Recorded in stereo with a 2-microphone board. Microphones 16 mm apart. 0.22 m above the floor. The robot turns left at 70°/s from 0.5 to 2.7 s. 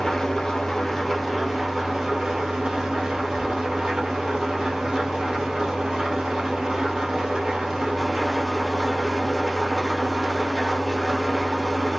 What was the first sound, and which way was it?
An engine running, 45° left.